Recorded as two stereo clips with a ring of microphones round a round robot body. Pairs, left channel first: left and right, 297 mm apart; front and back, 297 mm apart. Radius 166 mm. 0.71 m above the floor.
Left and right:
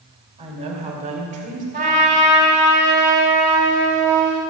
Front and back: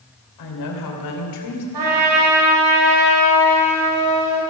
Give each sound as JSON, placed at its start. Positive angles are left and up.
{"t": 0.4, "sound": "a woman speaking", "azimuth_deg": -15, "distance_m": 3.0}
{"t": 1.7, "sound": "a trumpet", "azimuth_deg": -155, "distance_m": 4.0}